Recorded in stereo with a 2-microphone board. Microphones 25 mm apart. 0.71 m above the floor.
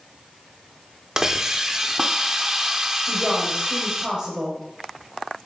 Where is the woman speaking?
30° right (ahead or behind), 4 m.